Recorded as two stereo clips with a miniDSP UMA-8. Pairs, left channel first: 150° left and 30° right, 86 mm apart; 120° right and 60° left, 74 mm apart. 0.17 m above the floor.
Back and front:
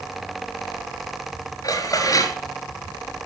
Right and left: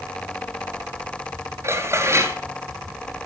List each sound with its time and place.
1.6 s dishes clattering: 105° left, 2 m